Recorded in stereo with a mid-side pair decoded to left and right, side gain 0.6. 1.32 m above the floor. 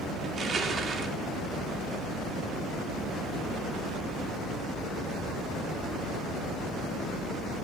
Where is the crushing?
40° right, 2.5 m.